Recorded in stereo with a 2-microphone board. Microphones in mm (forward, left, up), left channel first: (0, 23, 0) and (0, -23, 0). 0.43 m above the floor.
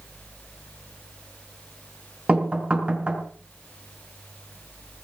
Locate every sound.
2.3 s knocking: 25° right (ahead or behind), 4 m